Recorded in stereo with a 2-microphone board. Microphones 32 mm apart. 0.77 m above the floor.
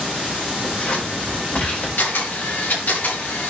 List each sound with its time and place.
0.6 s scissors: 50° left (ahead or behind), 3 m
2.0 s a camera shutter: 85° left, 6 m